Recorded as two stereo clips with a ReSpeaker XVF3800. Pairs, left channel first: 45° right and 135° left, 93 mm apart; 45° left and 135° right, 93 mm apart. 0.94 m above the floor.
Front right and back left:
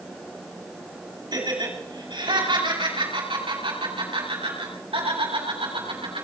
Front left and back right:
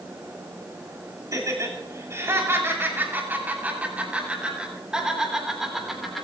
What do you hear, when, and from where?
1.3 s laughter: 175° left, 5.5 m; by 6.2 s 135° left, 7 m